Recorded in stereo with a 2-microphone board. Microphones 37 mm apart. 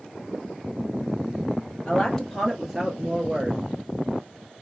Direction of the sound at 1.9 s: 25° left (ahead or behind).